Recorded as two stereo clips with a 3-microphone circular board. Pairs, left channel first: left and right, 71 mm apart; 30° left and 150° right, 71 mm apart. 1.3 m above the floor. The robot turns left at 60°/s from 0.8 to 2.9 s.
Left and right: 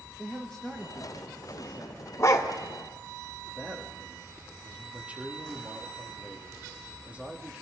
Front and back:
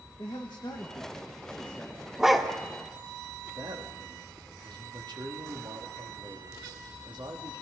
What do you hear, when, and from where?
0.2 s a man speaking: 10° left, 1.8 m; by 2.1 s 65° right, 1.8 m
2.2 s a dog barking: 130° left, 1.5 m; by 2.5 s 110° left, 1.5 m
3.5 s a man speaking: 160° right, 2 m